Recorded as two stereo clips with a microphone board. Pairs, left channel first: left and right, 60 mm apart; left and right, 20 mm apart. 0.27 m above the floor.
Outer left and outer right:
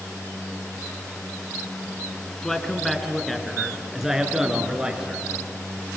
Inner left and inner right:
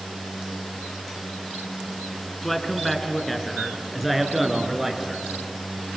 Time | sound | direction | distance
2.4 | a man speaking | 10° left (ahead or behind) | 2.5 m